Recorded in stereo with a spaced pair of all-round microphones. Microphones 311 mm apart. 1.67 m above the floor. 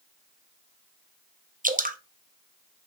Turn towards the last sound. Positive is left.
turn(degrees=-25)  # may be behind; listen again after turning